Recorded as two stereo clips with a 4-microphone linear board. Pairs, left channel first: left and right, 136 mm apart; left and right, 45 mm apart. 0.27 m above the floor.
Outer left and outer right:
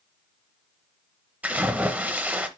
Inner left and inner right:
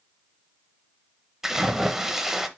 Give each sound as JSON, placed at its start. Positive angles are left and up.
{"t": 1.4, "sound": "a splash", "side_deg": -10, "distance_m": 0.8}